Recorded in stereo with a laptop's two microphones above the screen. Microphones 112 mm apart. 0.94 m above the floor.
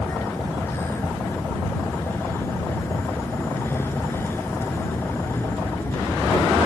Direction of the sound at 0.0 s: 20° left (ahead or behind).